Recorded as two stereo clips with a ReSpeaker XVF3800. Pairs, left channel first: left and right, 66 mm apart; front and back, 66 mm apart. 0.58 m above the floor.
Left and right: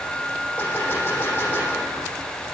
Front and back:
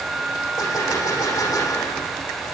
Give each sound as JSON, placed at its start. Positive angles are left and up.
{"t": 0.6, "sound": "a gunshot", "azimuth_deg": 25, "distance_m": 6.5}